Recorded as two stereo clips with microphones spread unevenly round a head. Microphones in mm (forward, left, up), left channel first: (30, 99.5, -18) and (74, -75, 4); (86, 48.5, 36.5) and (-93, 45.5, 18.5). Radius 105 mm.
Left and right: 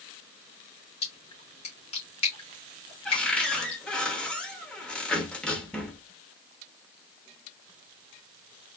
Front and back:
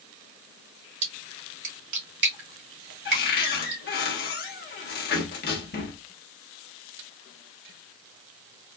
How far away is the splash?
About 1.9 m.